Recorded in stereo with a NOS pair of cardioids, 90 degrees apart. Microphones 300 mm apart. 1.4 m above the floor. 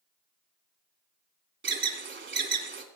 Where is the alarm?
40° right, 3 m.